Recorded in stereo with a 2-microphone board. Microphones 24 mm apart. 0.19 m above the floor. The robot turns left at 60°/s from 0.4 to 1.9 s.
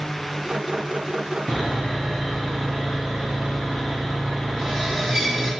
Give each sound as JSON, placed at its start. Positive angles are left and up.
{"t": 1.5, "sound": "sawing", "side_deg": -25, "distance_m": 1.4}